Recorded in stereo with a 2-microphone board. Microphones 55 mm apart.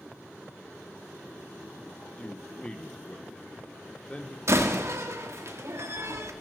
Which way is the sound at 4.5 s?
65° right (ahead or behind).